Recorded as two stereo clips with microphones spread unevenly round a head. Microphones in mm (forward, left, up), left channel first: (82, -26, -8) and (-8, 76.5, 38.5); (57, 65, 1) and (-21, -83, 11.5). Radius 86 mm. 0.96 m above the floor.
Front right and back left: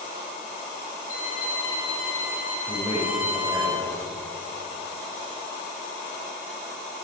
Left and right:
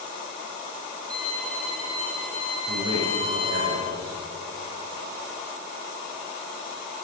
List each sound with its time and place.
1.1 s a violin: 20° right, 9.5 m
2.7 s a man speaking: 140° right, 7 m